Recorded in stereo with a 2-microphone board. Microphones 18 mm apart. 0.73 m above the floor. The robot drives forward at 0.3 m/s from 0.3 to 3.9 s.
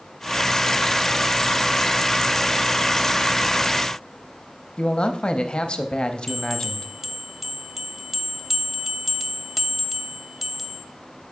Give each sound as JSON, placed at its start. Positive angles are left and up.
{"t": 4.8, "sound": "a man speaking", "side_deg": 50, "distance_m": 0.6}
{"t": 6.3, "sound": "a bell", "side_deg": -15, "distance_m": 0.7}